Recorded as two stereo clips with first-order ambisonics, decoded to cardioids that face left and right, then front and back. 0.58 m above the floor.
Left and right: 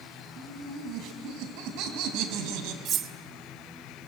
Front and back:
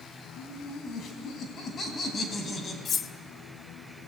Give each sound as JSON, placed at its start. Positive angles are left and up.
{"t": 0.4, "sound": "laughter", "azimuth_deg": -45, "distance_m": 4.0}
{"t": 2.9, "sound": "cutlery clinking", "azimuth_deg": -50, "distance_m": 0.6}